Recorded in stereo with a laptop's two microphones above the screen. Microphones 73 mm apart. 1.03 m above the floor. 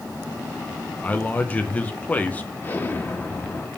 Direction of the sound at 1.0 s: 20° left (ahead or behind).